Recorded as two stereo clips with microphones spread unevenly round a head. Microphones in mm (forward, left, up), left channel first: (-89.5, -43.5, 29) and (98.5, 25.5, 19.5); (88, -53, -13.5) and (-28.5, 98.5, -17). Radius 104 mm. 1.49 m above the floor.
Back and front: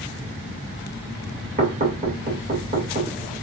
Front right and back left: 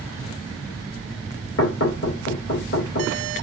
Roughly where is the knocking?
Ahead right.